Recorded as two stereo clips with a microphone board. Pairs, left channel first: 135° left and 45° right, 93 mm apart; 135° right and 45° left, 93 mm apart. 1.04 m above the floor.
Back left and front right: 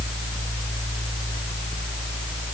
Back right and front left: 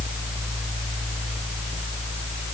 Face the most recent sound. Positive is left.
No sound to turn to.